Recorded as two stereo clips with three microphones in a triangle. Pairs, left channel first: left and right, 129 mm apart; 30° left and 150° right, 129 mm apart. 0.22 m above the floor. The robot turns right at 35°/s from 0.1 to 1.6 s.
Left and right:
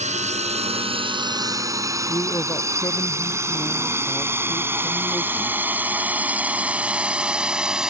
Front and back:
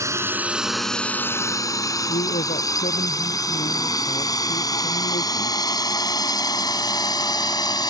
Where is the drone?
85° right; by 7.9 s 10° right.